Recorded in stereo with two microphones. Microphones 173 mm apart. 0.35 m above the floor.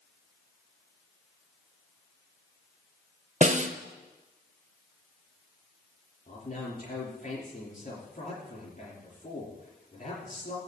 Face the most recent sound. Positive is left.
turn(degrees=50)  # may be behind; listen again after turning